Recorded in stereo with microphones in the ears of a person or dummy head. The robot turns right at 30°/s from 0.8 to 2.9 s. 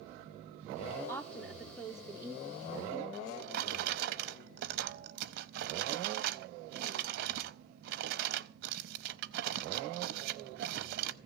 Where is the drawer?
60° right (ahead or behind), 0.6 m.